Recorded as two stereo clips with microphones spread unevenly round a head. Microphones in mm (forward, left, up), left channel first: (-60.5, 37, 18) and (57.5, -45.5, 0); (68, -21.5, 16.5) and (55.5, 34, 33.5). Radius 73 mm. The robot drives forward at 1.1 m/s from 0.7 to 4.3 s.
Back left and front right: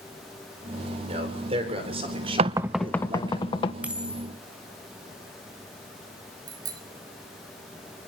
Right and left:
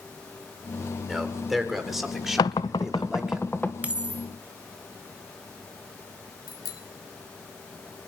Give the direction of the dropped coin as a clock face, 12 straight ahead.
10 o'clock.